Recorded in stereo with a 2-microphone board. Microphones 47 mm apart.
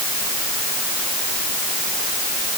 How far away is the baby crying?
No baby crying in this recording.